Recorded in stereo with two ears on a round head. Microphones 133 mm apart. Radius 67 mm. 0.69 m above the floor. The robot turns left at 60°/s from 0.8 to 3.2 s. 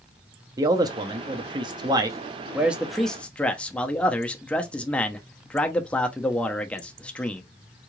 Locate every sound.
0.6 s a man speaking: 50° right, 0.7 m; by 7.4 s 165° left, 0.7 m